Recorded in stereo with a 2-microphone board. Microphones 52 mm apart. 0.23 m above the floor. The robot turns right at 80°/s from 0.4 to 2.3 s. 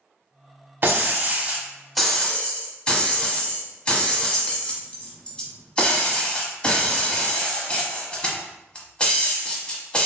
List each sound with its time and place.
0.8 s breaking glass: 90° right, 0.7 m; by 10.1 s 30° left, 0.7 m